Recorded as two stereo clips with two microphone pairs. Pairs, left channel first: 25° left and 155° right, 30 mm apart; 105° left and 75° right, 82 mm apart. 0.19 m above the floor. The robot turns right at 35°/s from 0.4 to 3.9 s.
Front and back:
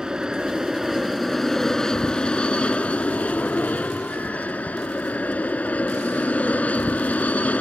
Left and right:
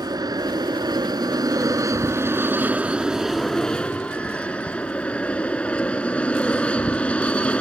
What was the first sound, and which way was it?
An aircraft, 90° right.